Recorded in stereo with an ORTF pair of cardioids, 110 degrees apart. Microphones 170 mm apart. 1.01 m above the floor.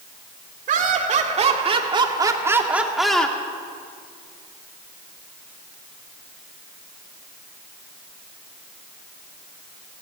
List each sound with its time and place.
0.7 s laughter: 50° right, 2.5 m; by 3.4 s 10° left, 1.8 m